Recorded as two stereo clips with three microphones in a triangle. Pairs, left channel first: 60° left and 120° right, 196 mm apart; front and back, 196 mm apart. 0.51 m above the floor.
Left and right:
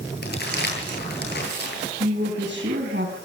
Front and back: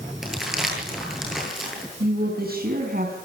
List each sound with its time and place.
0.2 s crumpling: 90° left, 10 m
2.0 s a woman speaking: 145° right, 4.5 m